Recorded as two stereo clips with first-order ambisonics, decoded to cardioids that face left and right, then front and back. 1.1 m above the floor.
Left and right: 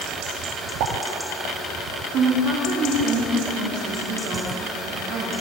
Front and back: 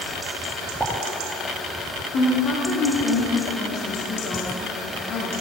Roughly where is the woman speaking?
Ahead right.